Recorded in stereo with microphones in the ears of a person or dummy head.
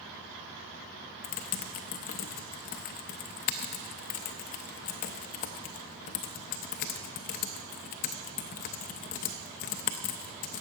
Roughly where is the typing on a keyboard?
Left.